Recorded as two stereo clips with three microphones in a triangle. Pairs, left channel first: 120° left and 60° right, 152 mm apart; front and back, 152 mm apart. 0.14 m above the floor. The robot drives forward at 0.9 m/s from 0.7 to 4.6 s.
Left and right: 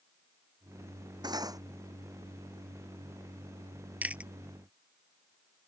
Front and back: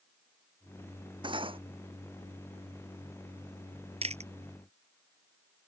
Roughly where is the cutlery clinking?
Behind right.